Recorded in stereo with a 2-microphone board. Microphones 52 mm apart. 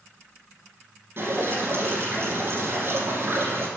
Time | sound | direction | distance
1.2 | dripping | 45° right (ahead or behind) | 2 m